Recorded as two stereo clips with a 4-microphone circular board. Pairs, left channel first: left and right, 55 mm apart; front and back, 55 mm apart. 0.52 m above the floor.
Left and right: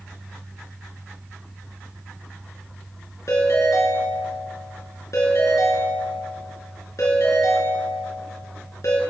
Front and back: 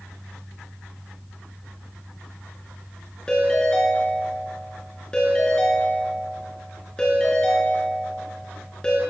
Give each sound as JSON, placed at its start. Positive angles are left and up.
{"t": 3.3, "sound": "a ringtone", "azimuth_deg": 75, "distance_m": 4.0}